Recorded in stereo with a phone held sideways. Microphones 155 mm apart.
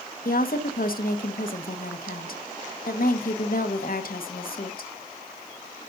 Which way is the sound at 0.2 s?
70° left (ahead or behind).